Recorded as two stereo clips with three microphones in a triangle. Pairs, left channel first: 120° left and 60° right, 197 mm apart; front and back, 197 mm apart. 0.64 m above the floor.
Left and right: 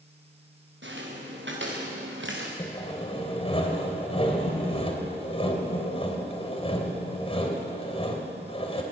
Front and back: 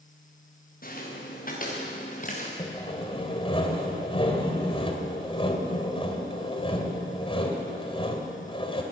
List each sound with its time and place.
0.8 s footsteps: 40° right, 6.5 m; by 2.5 s 50° right, 4.5 m
2.6 s sawing: 60° left, 3 m